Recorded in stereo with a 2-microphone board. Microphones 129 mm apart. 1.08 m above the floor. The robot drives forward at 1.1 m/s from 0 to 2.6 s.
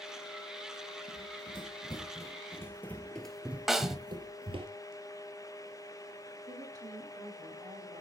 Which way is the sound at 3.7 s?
5° right (ahead or behind).